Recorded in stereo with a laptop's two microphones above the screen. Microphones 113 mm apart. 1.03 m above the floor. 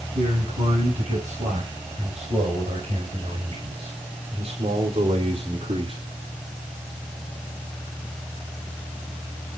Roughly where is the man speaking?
Right.